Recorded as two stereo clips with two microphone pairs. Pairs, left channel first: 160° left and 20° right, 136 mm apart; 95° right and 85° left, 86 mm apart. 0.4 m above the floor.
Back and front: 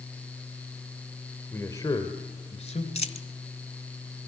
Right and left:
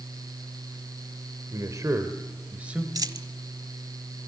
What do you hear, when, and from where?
1.5 s a man speaking: 95° left, 1.6 m; by 2.9 s 160° left, 2 m
3.0 s a dropped coin: 125° left, 1.0 m